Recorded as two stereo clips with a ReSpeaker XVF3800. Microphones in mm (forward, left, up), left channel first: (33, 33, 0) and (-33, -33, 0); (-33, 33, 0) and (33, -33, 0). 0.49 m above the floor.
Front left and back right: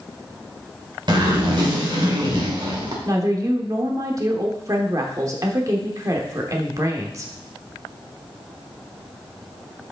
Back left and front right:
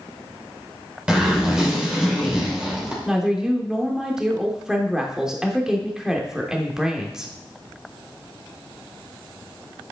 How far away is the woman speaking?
About 1.2 m.